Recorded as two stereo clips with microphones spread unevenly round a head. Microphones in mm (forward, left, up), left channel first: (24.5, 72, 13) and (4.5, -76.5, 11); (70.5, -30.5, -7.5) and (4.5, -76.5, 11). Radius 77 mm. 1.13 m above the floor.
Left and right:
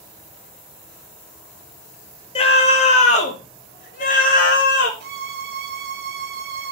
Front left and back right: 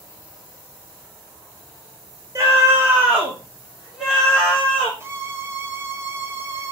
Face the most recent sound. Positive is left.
turn(degrees=-85)